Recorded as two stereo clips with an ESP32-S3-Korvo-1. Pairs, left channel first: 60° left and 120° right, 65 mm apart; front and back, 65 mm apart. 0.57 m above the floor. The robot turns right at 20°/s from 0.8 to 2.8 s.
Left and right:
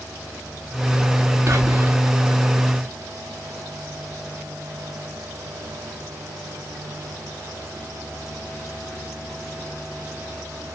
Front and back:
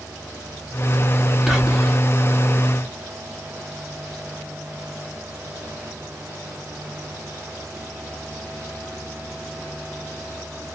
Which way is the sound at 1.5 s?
95° right.